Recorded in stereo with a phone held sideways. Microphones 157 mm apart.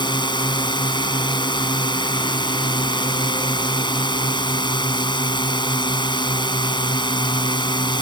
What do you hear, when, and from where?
0.0 s a drone: 30° left (ahead or behind)